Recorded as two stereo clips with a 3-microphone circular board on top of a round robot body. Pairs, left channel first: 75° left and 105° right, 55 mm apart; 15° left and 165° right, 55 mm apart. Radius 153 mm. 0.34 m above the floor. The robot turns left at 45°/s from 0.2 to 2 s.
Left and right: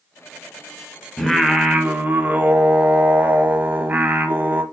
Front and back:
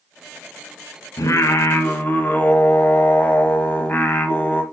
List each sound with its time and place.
1.2 s singing: 10° right, 1.3 m; by 4.6 s 45° right, 1.3 m